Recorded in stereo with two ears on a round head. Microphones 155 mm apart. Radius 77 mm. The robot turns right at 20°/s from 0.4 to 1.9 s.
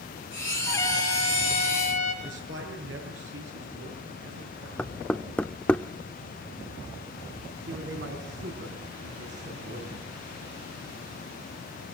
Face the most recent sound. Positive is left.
turn(degrees=-75)  # may be behind; listen again after turning